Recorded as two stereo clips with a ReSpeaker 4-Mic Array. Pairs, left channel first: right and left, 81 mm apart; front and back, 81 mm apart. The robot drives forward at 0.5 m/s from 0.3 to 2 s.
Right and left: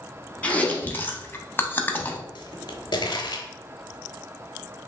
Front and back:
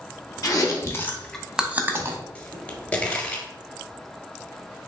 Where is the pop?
70° right, 0.8 m.